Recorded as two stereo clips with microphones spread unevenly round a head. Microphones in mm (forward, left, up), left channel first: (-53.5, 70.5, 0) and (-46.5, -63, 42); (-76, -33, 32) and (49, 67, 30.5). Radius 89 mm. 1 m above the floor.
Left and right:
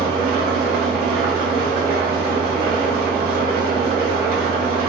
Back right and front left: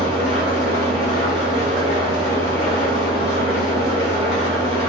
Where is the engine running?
90° right, 1.5 m.